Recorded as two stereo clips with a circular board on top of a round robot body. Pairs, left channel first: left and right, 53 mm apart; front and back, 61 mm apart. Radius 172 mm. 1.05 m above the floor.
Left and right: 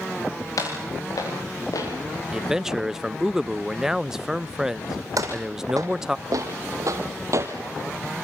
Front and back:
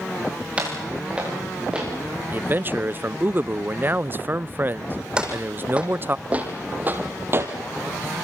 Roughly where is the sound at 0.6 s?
Left.